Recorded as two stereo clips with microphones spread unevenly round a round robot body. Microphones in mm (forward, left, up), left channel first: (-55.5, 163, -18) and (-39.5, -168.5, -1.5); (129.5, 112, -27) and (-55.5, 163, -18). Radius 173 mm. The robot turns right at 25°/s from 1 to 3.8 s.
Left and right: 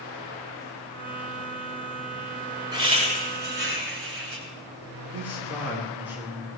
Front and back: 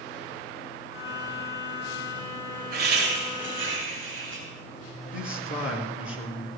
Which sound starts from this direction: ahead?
A man speaking, at 5.1 s.